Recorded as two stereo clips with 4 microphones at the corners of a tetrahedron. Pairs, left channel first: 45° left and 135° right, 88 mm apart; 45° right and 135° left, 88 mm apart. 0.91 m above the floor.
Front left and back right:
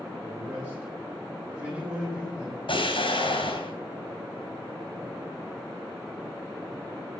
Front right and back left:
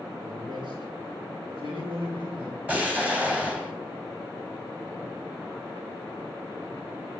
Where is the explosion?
60° left, 3.5 m.